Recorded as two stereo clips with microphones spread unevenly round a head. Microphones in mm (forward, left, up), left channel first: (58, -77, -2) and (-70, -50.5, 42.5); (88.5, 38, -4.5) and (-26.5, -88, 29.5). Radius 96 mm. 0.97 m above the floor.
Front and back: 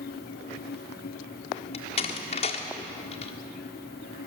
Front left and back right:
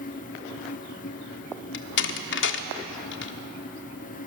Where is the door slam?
45° left, 1.3 m.